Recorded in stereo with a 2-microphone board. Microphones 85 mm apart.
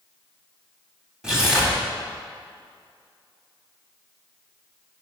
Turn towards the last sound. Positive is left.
turn(degrees=-5)  # may be behind; listen again after turning